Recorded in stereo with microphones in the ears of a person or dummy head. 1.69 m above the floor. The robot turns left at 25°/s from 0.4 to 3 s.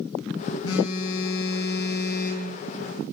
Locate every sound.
0.6 s a phone buzzing: 95° left, 4.5 m; by 2.5 s 50° left, 4.5 m